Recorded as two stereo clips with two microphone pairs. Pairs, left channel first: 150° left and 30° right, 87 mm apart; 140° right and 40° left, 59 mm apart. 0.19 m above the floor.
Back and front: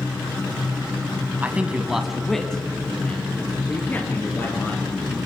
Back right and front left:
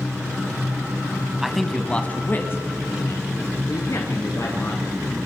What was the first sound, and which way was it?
A man speaking, 35° right.